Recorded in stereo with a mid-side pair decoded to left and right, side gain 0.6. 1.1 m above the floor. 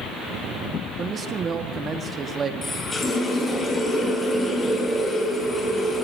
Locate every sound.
1.0 s a man speaking: 35° right, 1.7 m
2.6 s a running tap: 25° left, 8.5 m